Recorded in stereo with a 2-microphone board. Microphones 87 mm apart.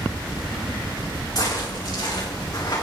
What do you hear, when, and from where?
1.4 s footsteps: 45° left (ahead or behind), 6.5 m; by 2.8 s 40° left (ahead or behind), 5.5 m